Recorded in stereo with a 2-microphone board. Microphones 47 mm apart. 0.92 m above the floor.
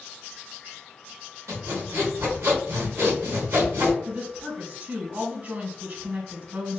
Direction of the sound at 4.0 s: 45° right (ahead or behind).